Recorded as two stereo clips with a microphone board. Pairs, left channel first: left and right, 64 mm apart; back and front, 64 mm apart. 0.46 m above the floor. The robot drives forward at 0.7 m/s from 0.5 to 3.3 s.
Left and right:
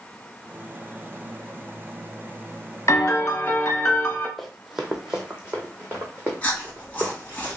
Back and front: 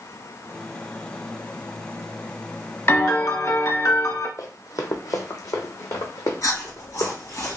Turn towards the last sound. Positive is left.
turn(degrees=155)